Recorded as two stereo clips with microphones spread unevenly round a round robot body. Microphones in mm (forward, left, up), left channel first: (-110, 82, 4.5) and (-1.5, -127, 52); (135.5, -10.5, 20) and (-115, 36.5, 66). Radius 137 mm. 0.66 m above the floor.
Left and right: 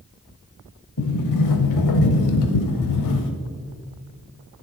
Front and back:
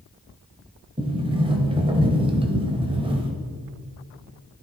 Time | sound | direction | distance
1.0 | a sliding door | 105° left | 0.8 m